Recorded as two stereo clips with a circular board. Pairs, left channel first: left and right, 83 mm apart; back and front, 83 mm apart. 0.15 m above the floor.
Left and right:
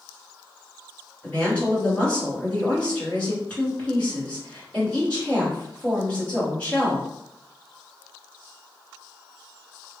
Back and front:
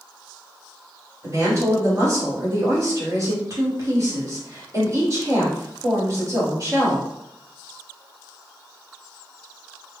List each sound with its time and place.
1.2 s a woman speaking: 25° left, 1.9 m